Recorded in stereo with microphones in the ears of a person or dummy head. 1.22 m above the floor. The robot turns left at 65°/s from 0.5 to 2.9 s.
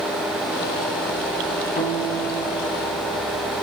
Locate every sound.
1.8 s a guitar: 35° left, 3 m; by 3.2 s 35° right, 3 m